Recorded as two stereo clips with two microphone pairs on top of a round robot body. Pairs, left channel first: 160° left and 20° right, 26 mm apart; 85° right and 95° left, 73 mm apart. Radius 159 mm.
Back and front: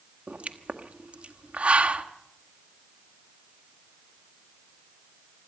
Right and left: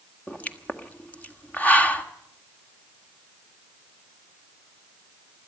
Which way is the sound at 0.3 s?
15° right.